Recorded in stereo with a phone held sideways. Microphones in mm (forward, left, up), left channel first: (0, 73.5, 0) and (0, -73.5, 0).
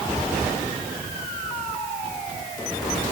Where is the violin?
No violin in this recording.